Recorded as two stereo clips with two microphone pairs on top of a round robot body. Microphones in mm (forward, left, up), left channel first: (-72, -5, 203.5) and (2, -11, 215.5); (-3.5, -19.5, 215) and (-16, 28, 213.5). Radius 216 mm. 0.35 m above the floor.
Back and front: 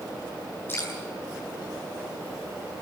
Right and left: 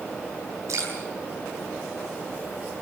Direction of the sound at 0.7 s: 115° left.